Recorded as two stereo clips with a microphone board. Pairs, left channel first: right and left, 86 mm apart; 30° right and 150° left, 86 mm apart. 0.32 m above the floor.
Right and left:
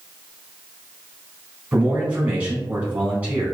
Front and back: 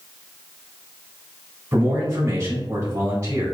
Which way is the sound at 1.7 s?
155° left.